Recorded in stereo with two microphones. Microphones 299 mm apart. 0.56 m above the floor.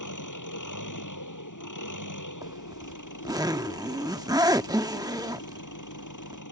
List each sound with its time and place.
0.0 s an engine running: 85° left
2.4 s a zipper: 10° right (ahead or behind)